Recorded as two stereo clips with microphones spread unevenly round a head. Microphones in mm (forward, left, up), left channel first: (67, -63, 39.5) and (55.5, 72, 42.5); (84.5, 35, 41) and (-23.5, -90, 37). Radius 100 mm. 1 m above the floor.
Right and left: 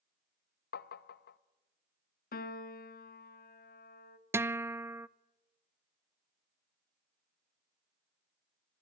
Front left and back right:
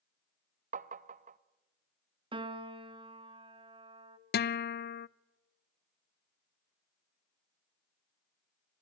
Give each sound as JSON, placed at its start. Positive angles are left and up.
{"t": 0.7, "sound": "tapping", "azimuth_deg": -85, "distance_m": 0.7}
{"t": 2.3, "sound": "a piano", "azimuth_deg": -70, "distance_m": 1.3}
{"t": 4.3, "sound": "a guitar", "azimuth_deg": 20, "distance_m": 0.5}